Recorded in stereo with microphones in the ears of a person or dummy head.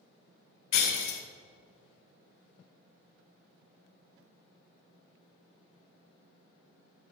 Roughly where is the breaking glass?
Left.